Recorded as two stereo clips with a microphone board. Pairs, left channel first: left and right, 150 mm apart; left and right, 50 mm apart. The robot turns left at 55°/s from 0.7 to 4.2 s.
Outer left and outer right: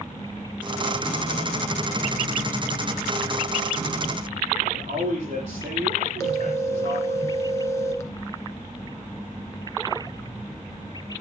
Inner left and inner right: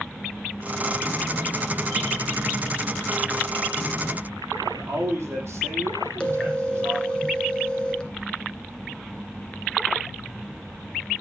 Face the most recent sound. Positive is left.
turn(degrees=20)  # may be behind; listen again after turning